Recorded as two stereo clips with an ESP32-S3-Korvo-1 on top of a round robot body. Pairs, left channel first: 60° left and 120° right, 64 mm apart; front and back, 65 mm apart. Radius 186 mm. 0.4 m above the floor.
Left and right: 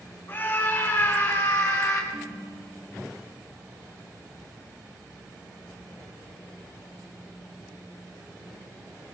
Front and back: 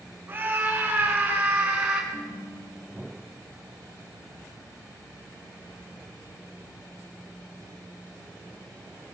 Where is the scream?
115° left, 9 m; by 2.0 s 105° left, 7.5 m.